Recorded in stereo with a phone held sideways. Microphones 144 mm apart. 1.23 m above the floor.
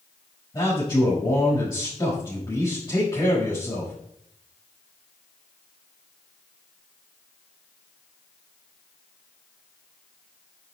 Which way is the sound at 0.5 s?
25° left (ahead or behind).